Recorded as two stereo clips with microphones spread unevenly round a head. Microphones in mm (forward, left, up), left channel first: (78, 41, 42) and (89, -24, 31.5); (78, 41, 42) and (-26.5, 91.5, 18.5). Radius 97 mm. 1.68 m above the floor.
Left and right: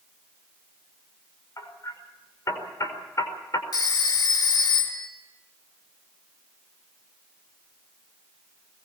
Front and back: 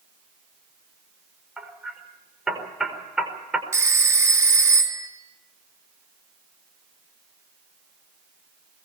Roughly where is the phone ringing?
Left.